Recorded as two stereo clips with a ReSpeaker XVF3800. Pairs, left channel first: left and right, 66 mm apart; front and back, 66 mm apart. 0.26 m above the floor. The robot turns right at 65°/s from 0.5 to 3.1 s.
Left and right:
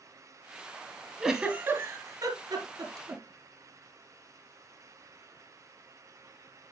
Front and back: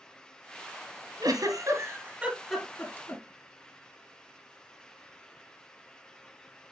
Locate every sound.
1.2 s a giggle: 170° right, 1.9 m; by 3.2 s 45° right, 1.9 m